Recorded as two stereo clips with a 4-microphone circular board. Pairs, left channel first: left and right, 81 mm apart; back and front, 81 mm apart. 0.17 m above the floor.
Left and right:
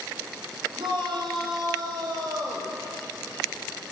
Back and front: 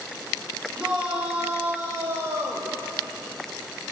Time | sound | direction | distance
0.8 | a shout | 80° right | 7.5 m